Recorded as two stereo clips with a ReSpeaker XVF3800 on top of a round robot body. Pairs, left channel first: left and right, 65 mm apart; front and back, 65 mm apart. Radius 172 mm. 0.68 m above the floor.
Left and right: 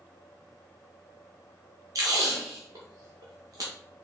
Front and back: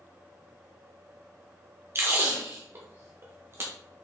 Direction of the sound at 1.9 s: 125° right.